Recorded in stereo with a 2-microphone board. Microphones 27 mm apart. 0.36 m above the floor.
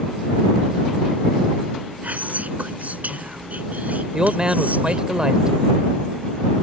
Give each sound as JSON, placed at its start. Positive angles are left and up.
{"t": 2.0, "sound": "whispering", "side_deg": -65}
{"t": 4.1, "sound": "a man speaking", "side_deg": -30}